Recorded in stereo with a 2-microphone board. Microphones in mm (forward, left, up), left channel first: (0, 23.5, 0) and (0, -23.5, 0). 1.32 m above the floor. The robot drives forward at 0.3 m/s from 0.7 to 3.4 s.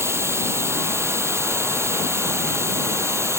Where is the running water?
65° right (ahead or behind).